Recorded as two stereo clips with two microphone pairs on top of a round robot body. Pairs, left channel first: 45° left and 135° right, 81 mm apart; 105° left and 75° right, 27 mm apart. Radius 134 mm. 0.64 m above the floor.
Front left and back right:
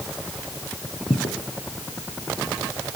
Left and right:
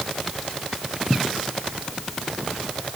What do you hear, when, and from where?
1.1 s footsteps: 80° left, 1.2 m